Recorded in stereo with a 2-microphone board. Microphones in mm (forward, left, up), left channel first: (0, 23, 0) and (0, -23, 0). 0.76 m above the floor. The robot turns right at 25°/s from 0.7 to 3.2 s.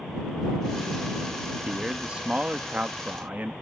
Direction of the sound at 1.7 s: 155° right.